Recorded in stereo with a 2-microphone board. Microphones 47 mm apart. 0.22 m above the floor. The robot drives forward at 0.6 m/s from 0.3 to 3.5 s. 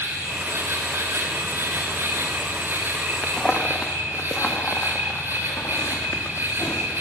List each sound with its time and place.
0.0 s an insect: 70° right (ahead or behind), 1.9 m; by 7.0 s 45° right (ahead or behind), 2.5 m
3.2 s footsteps: 20° left (ahead or behind), 1.2 m; by 6.9 s 75° left (ahead or behind), 2.5 m